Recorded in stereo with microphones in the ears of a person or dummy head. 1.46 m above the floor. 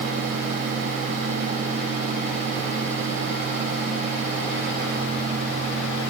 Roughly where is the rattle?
I don't hear a rattle.